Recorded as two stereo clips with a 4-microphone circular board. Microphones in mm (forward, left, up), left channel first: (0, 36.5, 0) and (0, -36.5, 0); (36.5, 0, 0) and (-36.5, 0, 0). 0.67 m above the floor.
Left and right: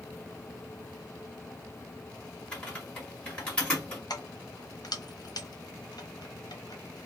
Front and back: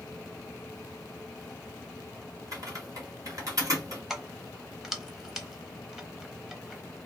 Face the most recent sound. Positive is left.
turn(degrees=95)